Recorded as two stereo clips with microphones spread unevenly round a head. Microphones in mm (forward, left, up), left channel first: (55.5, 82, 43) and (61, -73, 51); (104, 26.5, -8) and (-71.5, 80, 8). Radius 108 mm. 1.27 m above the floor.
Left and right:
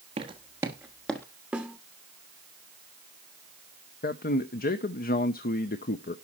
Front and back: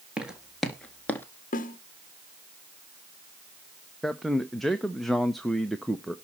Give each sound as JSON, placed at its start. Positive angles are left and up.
{"t": 0.2, "sound": "footsteps", "azimuth_deg": -125, "distance_m": 1.5}
{"t": 1.5, "sound": "a snare drum", "azimuth_deg": -10, "distance_m": 1.0}
{"t": 4.0, "sound": "a man speaking", "azimuth_deg": 70, "distance_m": 0.8}